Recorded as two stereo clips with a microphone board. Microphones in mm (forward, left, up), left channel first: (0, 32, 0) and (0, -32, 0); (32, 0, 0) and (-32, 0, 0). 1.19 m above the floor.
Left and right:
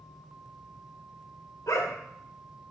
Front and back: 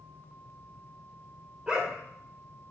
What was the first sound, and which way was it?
A dog barking, 105° left.